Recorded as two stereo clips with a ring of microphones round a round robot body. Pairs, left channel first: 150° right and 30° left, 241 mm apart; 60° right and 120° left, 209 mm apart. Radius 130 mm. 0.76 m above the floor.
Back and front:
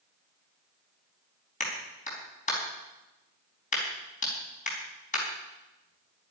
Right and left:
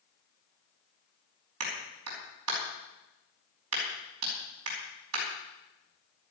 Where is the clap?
150° left, 4.5 m.